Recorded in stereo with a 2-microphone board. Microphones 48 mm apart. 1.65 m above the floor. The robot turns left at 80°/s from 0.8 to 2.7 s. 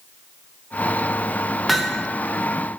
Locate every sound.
1.7 s hammering: 5° right (ahead or behind), 0.9 m; by 2.0 s 20° left (ahead or behind), 0.9 m